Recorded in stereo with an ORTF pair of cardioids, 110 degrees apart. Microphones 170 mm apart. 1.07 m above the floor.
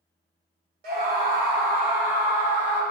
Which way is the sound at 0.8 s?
65° right.